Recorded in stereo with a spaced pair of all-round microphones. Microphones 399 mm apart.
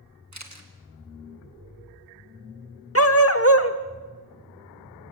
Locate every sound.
0.3 s a camera shutter: 45° right (ahead or behind), 2.0 m
3.0 s a dog barking: 35° left (ahead or behind), 1.1 m